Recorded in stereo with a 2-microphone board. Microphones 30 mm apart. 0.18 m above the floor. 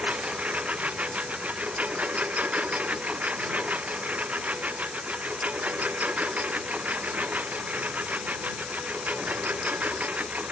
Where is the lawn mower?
50° right (ahead or behind); by 10.5 s 60° right (ahead or behind).